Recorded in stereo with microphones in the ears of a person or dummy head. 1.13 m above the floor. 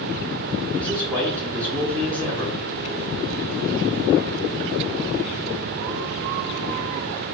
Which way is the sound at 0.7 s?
20° right (ahead or behind).